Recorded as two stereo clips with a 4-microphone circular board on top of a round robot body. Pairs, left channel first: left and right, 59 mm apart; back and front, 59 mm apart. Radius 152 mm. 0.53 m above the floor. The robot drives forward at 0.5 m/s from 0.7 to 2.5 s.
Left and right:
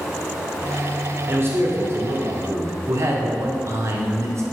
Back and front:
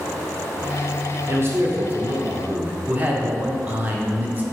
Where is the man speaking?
40° right, 2 m; by 4.4 s 55° right, 1.7 m.